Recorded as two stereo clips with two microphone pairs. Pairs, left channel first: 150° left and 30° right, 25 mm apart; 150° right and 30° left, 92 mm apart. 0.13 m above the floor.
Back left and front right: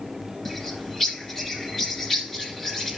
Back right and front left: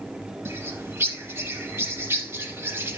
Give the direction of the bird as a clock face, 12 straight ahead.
9 o'clock.